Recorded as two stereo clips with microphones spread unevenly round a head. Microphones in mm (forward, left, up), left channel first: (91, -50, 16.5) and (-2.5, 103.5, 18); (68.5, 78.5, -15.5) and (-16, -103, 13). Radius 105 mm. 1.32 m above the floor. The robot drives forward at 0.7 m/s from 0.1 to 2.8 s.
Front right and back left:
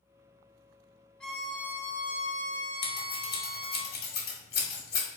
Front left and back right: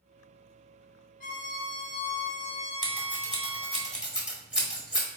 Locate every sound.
1.2 s a violin: 25° left, 0.9 m; by 3.8 s 135° left, 0.7 m
2.8 s scissors: 30° right, 1.4 m